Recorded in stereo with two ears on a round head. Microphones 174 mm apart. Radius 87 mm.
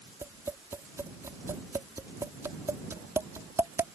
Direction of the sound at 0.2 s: 15° right (ahead or behind).